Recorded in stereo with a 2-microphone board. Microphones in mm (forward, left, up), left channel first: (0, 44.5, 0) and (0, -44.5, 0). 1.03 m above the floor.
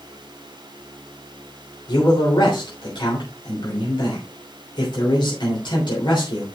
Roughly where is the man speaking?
Left.